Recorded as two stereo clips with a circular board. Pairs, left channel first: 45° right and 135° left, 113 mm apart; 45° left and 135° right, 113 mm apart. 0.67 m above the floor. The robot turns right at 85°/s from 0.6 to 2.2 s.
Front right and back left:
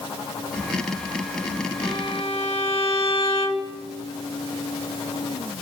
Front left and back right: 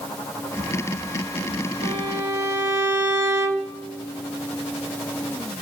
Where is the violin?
100° right, 3 m; by 3.8 s 70° right, 3 m.